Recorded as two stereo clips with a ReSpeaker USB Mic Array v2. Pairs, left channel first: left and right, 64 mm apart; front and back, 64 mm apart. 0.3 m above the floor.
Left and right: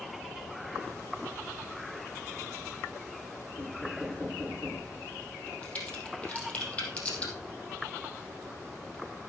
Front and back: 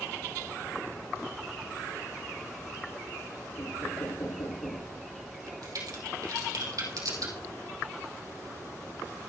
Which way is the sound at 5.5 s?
160° left.